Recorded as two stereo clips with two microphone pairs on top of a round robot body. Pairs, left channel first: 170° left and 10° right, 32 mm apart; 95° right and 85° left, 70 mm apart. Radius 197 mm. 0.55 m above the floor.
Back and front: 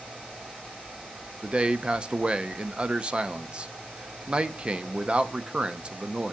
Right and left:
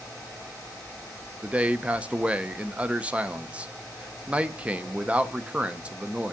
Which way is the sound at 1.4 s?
20° left.